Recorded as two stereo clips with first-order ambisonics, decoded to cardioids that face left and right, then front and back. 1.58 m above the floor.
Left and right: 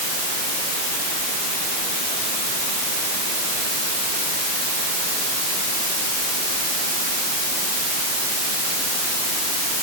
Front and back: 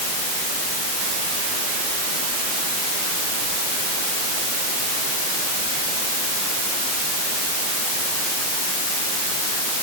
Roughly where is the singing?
No singing in this recording.